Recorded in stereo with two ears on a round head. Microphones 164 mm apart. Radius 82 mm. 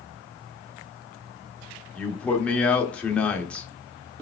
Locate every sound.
1.9 s a man speaking: 5° left (ahead or behind), 0.9 m